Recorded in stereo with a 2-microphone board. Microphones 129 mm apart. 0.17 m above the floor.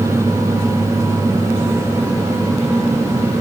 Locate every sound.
Only background noise.